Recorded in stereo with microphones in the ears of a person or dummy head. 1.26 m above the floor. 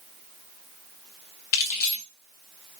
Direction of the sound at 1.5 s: 50° left (ahead or behind).